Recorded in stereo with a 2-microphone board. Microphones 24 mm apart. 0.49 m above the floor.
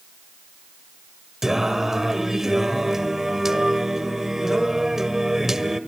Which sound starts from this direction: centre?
Singing, at 1.4 s.